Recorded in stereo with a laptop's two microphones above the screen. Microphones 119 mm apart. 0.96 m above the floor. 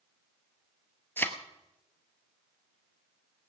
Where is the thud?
20° left (ahead or behind), 1.2 m.